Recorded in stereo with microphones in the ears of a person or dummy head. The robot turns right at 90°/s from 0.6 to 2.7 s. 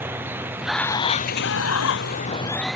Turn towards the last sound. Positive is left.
turn(degrees=180)